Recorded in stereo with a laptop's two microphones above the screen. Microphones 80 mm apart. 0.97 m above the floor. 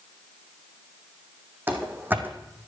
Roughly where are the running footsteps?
Right.